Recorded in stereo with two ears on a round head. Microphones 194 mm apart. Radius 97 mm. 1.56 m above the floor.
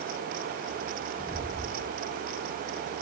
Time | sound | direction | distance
1.2 | footsteps | 15° left (ahead or behind) | 1.9 m